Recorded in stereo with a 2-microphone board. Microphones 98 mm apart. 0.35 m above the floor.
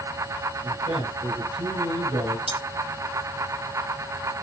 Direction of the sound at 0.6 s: 70° right (ahead or behind).